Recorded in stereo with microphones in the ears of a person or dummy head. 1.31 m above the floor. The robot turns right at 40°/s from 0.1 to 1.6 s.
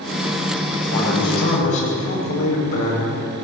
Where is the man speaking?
85° left, 8.5 m; by 3.0 s 60° left (ahead or behind), 8.5 m.